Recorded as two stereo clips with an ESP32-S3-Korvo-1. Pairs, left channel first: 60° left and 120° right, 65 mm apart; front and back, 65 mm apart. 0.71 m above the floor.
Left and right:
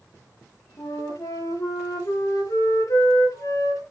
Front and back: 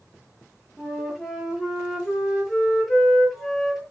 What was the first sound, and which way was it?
A flute, 95° left.